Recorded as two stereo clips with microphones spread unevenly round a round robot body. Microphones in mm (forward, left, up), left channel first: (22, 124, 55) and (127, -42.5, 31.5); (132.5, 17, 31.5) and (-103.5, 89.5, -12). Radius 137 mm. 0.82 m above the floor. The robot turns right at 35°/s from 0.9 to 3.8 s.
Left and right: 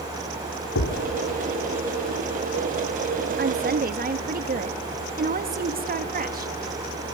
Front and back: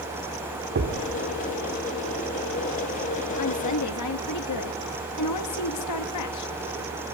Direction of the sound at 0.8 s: 115° left.